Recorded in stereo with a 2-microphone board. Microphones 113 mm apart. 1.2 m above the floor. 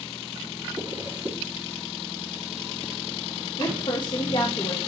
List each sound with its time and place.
0.8 s a zipper: 40° right (ahead or behind), 3 m
3.6 s a woman speaking: 45° left (ahead or behind), 1.1 m